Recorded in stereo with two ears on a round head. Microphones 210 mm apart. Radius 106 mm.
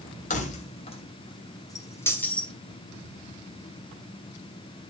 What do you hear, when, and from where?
0.3 s keys jangling: 35° left (ahead or behind), 2.5 m; by 2.5 s 5° left (ahead or behind), 2.5 m